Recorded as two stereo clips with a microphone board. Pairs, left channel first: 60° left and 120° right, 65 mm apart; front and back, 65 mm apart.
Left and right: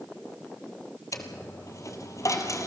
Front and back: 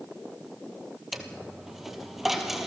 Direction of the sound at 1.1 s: 95° left.